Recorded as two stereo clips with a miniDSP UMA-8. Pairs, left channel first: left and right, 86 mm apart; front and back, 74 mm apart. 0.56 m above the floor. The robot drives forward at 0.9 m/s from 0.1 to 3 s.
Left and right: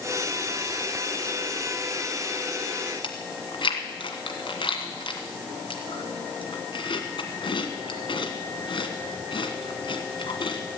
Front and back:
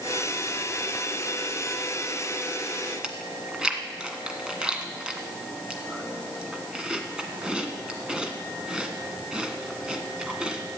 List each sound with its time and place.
3.0 s chewing: 100° left, 1.6 m